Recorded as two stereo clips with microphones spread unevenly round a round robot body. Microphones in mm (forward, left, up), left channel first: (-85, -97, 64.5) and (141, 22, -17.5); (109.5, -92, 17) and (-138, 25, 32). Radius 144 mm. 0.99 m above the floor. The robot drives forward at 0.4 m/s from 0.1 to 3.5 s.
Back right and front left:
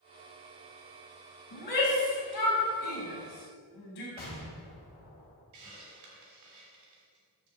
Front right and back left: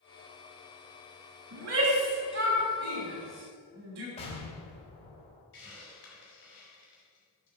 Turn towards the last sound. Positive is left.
turn(degrees=25)